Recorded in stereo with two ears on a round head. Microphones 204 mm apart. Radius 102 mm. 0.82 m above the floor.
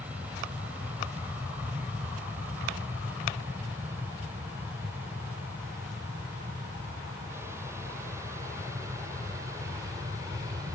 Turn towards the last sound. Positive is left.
turn(degrees=-15)  # may be behind; listen again after turning